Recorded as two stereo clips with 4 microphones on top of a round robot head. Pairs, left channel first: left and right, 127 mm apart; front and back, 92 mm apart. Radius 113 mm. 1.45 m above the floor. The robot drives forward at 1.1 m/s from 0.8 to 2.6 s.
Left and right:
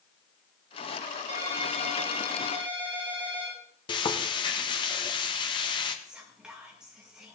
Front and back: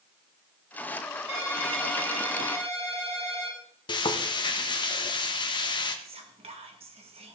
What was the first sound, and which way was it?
A ringtone, 140° right.